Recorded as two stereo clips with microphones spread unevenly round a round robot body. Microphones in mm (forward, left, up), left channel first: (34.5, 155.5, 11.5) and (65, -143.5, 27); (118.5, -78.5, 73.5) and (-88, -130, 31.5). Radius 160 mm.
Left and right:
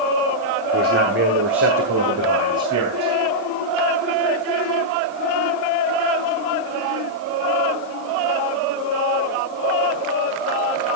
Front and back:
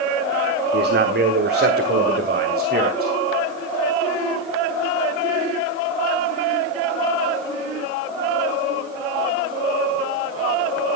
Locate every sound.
0.7 s a man speaking: 145° right, 1.3 m; by 3.1 s 125° right, 3 m